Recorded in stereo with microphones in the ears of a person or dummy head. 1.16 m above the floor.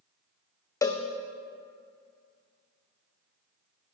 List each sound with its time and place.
0.8 s a cowbell: 15° left (ahead or behind), 0.7 m